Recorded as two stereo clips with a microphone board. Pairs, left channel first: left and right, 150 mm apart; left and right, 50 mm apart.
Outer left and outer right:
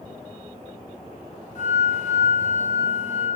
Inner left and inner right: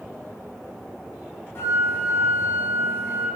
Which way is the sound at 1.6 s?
55° left (ahead or behind).